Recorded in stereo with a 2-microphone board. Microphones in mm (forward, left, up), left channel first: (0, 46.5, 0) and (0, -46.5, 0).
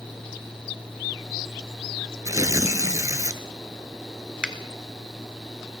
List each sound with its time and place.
2.2 s tearing paper: 40° right (ahead or behind), 0.7 m
4.4 s a finger snap: 10° right (ahead or behind), 1.0 m